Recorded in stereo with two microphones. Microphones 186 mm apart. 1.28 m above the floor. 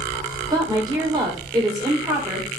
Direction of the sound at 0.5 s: 20° right (ahead or behind).